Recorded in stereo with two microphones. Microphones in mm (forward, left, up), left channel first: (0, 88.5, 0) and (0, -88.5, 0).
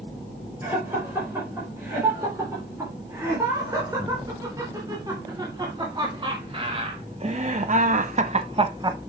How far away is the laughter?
About 5 m.